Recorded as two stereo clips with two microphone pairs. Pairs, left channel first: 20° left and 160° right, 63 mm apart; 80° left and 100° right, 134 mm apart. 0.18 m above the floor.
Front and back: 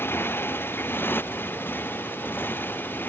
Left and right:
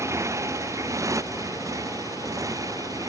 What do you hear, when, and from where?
0.0 s a motorcycle: 30° right; by 3.1 s 35° right